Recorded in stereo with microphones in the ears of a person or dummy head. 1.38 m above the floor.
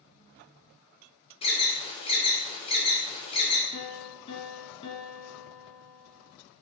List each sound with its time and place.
1.4 s an alarm: 25° left (ahead or behind), 1.3 m
3.7 s a piano: 35° left (ahead or behind), 2.5 m